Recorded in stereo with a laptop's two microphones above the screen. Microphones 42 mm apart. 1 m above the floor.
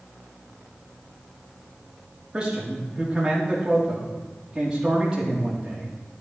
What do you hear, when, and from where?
2.3 s a man speaking: 15° right (ahead or behind), 2.5 m